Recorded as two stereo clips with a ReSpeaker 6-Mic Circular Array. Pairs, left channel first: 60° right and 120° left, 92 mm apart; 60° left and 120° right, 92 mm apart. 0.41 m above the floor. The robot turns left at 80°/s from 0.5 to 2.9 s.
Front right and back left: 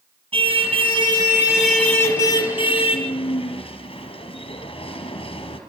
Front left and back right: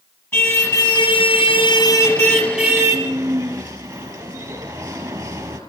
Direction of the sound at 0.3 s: 120° left.